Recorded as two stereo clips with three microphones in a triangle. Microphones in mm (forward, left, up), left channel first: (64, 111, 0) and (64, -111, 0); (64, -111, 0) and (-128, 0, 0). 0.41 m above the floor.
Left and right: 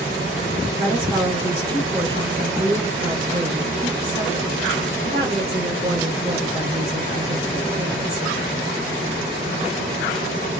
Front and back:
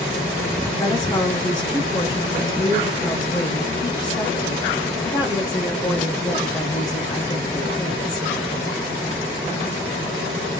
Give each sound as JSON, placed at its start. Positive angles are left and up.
{"t": 0.8, "sound": "a woman speaking", "azimuth_deg": -70, "distance_m": 1.2}